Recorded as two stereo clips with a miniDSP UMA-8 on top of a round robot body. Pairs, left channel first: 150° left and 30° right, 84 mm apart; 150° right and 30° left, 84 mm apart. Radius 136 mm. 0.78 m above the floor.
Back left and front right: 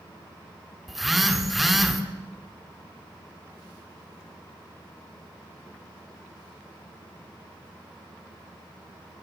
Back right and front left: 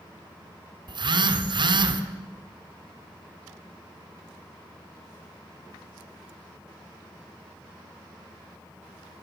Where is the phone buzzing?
60° left, 1.9 m.